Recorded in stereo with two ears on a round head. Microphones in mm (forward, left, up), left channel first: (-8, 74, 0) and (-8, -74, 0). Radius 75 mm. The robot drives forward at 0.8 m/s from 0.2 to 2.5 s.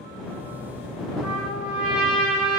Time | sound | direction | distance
1.2 | a trumpet | 10° right (ahead or behind) | 3 m